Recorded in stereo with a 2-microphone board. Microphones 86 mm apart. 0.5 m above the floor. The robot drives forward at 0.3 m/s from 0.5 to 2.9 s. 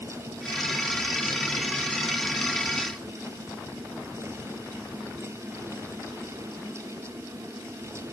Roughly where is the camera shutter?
No camera shutter in this recording.